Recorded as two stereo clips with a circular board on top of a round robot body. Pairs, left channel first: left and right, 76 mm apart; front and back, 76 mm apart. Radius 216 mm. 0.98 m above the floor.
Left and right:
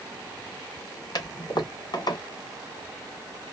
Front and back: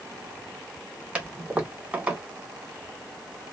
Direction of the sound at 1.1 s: 105° left.